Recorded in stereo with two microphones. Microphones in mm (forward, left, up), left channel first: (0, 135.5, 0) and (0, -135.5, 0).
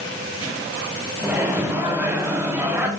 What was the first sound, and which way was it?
A microwave, 5° right (ahead or behind).